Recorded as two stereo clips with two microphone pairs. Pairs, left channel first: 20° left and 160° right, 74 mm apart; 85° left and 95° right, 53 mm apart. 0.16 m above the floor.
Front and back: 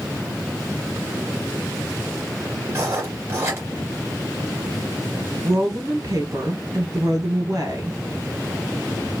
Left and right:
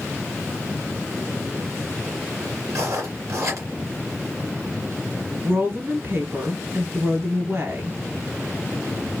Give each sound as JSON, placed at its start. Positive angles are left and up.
{"t": 2.7, "sound": "writing", "azimuth_deg": -110, "distance_m": 2.0}
{"t": 5.4, "sound": "a woman speaking", "azimuth_deg": -135, "distance_m": 2.0}